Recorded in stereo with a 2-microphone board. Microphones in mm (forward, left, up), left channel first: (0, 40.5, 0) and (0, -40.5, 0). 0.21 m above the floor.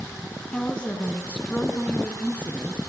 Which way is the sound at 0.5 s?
15° left (ahead or behind).